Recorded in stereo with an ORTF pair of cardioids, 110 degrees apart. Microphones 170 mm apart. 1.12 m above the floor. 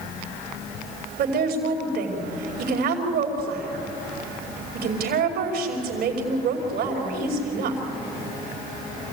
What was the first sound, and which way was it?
A woman speaking, 70° right.